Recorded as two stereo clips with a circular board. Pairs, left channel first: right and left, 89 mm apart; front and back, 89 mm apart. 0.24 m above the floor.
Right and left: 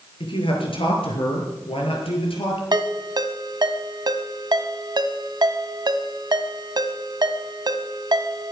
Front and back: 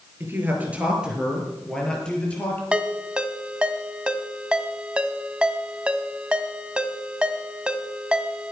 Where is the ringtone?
105° left, 1.1 m.